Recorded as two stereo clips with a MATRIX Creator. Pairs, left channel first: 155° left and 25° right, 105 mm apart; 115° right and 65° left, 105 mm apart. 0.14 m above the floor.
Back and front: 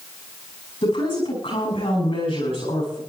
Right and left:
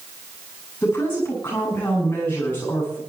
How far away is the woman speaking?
About 9 m.